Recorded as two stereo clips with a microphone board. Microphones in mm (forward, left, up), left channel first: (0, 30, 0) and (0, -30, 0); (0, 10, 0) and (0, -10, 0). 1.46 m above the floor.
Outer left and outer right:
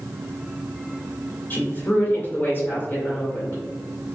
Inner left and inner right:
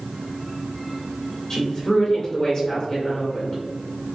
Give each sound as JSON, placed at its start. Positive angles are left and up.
{"t": 1.5, "sound": "a woman speaking", "side_deg": 40, "distance_m": 1.6}